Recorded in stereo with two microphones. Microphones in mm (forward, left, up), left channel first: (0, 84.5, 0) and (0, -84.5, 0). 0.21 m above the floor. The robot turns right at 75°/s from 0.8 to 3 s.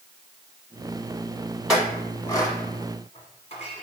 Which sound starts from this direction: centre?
A clink, at 1.7 s.